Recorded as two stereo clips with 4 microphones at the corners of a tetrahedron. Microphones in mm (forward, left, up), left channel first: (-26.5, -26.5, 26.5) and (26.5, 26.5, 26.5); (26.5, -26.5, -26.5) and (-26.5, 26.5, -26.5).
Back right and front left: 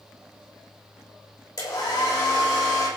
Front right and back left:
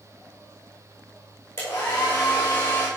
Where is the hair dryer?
105° right, 9.5 m.